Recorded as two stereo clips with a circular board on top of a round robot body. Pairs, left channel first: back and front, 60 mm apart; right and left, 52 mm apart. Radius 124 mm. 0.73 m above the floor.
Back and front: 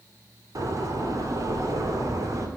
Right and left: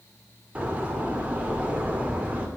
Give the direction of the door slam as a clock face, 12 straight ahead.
11 o'clock.